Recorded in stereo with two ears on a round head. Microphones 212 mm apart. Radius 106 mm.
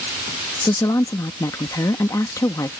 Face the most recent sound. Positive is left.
turn(degrees=15)  # may be behind; listen again after turning